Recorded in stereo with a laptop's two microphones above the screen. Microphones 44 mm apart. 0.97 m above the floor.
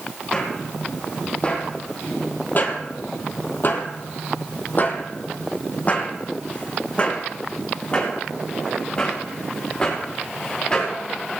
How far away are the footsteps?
About 2.5 m.